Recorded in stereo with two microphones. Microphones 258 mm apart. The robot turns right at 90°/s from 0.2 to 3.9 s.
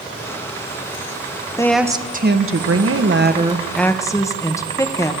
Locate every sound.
1.6 s a woman speaking: 165° left, 0.9 m; by 5.1 s 15° left, 0.9 m